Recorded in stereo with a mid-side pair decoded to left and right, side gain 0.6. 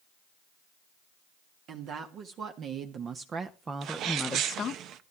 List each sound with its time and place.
1.7 s a woman speaking: 55° right, 2.5 m; by 4.8 s 55° left, 0.7 m
3.8 s a sneeze: 60° right, 1.2 m